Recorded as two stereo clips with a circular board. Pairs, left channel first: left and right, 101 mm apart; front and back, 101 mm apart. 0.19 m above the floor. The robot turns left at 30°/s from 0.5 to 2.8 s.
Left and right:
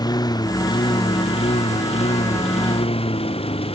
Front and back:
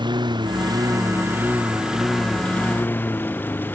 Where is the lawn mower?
140° left; by 3.7 s 70° left.